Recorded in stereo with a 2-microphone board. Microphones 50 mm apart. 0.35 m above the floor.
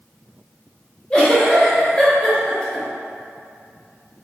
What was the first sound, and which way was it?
A giggle, 20° left (ahead or behind).